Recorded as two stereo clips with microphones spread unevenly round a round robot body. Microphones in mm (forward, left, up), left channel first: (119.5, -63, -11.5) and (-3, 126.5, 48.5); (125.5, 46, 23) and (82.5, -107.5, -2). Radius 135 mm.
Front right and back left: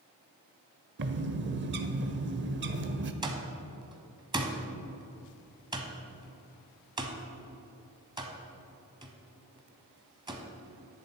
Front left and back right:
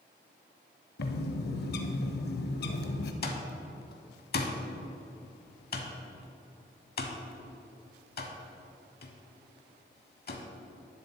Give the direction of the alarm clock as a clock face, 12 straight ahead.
10 o'clock.